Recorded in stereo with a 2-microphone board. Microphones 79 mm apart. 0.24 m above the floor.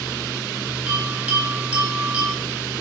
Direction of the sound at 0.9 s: 15° right (ahead or behind).